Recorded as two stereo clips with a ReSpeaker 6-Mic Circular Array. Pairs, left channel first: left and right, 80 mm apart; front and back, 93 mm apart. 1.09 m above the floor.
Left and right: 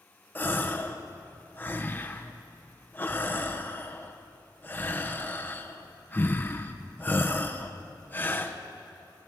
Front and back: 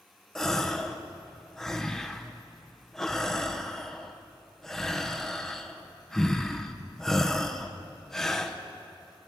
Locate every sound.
0.3 s a gasp: 80° left, 0.7 m